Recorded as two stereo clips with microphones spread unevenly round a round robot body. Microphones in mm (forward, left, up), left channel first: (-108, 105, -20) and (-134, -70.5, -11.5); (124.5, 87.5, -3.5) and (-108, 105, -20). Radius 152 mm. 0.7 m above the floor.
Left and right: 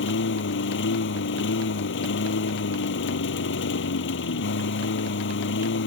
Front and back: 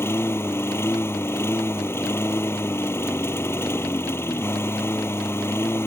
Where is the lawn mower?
75° left.